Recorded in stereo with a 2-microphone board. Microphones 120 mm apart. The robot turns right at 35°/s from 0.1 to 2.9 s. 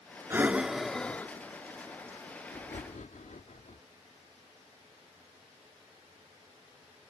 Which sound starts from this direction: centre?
Breathing, at 0.3 s.